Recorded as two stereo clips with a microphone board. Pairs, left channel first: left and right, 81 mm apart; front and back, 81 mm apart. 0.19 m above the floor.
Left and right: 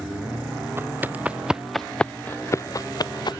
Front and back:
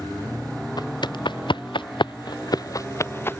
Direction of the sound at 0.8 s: 30° right.